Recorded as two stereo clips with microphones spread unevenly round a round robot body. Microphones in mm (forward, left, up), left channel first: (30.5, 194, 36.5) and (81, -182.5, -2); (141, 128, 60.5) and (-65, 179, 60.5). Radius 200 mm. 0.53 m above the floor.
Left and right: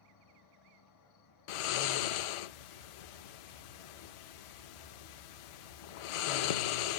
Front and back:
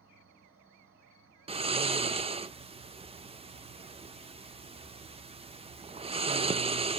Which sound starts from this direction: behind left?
An insect, at 0.0 s.